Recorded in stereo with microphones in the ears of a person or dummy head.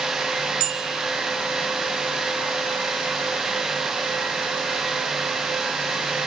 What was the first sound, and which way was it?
A bicycle bell, 70° right (ahead or behind).